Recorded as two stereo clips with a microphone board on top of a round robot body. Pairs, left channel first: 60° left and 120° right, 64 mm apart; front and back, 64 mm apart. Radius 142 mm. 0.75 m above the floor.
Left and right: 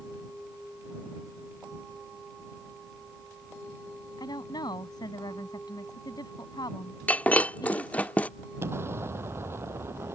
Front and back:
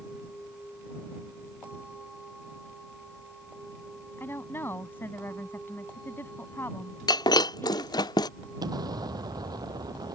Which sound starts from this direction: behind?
An explosion, at 8.6 s.